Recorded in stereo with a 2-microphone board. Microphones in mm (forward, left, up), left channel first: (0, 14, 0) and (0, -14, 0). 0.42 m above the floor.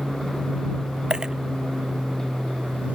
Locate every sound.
0.0 s an aircraft: 75° right (ahead or behind)
1.1 s a dropped coin: 30° right (ahead or behind)